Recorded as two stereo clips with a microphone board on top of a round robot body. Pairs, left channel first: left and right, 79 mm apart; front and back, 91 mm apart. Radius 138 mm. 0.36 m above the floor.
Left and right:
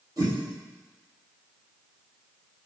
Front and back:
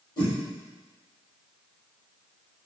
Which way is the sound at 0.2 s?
45° right.